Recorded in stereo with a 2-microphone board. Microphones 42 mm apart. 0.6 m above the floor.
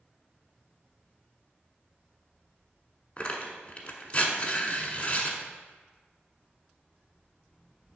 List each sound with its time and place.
3.2 s tearing paper: 30° left (ahead or behind), 1.1 m